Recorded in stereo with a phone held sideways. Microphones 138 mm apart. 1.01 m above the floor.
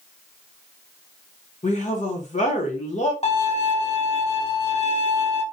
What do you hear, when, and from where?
1.6 s a woman speaking: 60° left (ahead or behind), 1.0 m
3.2 s a violin: 50° left (ahead or behind), 0.9 m